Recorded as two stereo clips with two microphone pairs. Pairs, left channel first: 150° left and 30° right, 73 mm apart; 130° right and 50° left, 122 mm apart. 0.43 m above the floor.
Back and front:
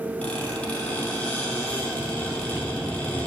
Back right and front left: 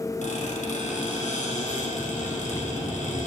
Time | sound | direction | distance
0.2 | a squeak | 135° right | 2.5 m